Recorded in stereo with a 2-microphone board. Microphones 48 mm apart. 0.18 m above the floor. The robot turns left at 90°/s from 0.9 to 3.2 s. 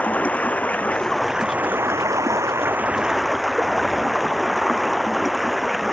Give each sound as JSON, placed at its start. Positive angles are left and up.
{"t": 0.0, "sound": "running water", "azimuth_deg": 30}